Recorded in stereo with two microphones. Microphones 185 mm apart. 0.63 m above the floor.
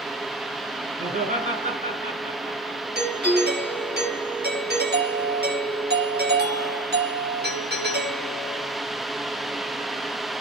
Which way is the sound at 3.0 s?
60° right (ahead or behind).